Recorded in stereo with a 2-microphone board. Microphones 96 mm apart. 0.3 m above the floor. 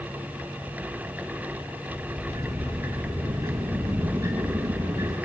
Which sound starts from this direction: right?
A sliding door, at 1.9 s.